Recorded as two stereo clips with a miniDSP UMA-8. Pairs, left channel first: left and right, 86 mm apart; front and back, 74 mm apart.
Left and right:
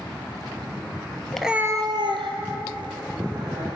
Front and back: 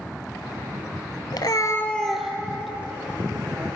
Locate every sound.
1.3 s a cat meowing: 10° left, 0.7 m; by 3.7 s 110° right, 3 m